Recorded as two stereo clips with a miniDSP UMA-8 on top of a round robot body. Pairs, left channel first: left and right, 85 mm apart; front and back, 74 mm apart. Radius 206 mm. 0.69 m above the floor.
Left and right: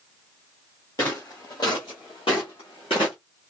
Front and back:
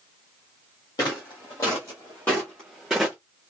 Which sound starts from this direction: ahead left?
Footsteps, at 1.0 s.